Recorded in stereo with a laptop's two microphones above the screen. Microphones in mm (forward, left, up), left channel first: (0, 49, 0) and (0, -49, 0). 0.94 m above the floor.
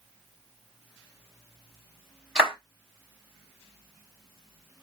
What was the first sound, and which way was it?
A clap, 15° right (ahead or behind).